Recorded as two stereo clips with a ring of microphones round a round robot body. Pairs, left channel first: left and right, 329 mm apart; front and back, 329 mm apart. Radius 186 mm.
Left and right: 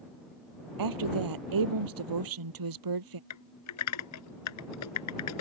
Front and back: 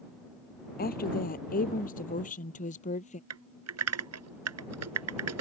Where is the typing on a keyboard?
135° left.